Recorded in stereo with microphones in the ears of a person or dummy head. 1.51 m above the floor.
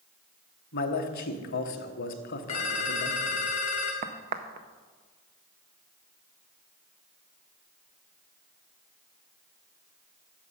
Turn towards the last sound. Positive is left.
turn(degrees=-35)  # may be behind; listen again after turning